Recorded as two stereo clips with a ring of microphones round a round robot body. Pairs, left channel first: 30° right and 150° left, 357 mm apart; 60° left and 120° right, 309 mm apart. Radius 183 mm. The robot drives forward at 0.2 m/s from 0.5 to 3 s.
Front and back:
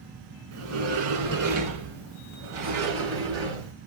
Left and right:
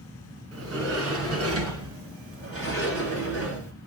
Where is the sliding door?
160° right, 1.8 m; by 3.7 s 165° right, 2 m.